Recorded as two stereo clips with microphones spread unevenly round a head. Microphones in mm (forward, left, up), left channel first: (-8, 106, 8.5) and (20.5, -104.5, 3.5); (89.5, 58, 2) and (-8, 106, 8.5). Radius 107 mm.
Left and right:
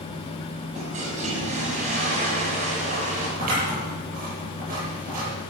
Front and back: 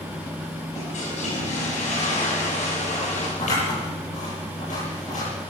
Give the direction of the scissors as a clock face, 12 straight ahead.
1 o'clock.